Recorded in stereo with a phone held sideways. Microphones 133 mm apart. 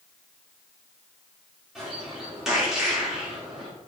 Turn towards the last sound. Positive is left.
turn(degrees=-5)  # may be behind; listen again after turning